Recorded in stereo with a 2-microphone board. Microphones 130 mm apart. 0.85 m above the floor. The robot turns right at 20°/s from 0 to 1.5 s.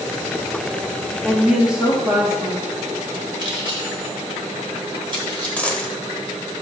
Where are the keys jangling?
40° right (ahead or behind), 1.9 m.